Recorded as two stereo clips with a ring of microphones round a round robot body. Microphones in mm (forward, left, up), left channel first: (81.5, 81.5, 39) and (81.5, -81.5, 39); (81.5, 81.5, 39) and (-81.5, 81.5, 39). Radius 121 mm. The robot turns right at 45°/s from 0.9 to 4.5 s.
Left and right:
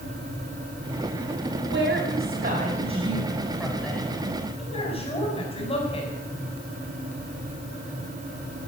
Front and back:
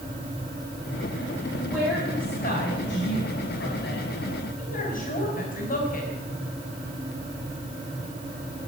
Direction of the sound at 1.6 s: 100° right.